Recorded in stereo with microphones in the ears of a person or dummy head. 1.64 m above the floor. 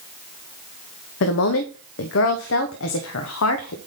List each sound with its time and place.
1.2 s a woman speaking: 70° left (ahead or behind), 0.9 m